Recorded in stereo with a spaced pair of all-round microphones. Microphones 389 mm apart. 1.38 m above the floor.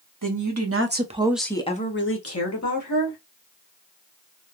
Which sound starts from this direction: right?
A woman speaking, at 0.2 s.